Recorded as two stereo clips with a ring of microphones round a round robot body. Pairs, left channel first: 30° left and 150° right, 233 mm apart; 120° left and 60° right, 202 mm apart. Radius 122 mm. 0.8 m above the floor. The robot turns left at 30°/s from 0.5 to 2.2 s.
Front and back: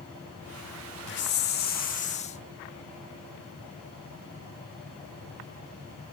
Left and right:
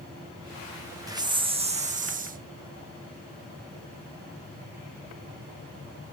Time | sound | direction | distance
1.1 | a hiss | 10° left | 1.3 m